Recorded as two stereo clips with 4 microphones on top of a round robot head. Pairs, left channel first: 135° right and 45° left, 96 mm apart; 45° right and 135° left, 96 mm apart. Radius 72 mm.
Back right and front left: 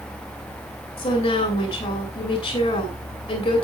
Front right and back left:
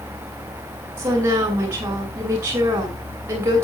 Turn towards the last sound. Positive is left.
turn(degrees=-165)